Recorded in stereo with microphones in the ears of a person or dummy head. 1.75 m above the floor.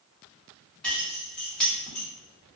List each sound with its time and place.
0.8 s keys jangling: centre (ahead or behind), 1.1 m